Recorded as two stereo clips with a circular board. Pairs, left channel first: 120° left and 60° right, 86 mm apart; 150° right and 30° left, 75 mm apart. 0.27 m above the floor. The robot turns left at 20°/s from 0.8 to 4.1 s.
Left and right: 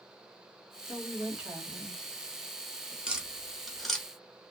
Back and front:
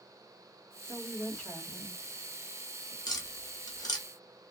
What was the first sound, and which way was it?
A woman speaking, 115° right.